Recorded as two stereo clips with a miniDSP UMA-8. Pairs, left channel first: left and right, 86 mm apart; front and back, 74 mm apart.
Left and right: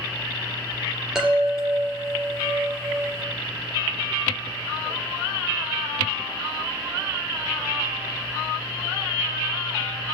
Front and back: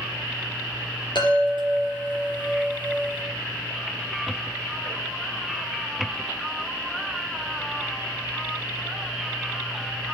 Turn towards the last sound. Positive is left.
turn(degrees=-5)